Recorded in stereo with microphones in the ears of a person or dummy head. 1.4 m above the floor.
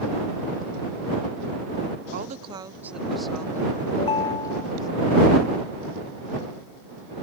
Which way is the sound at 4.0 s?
30° left (ahead or behind).